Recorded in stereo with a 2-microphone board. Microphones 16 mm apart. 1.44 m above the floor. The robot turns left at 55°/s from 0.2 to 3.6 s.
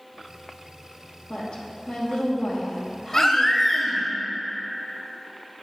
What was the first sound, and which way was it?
A woman speaking, 100° left.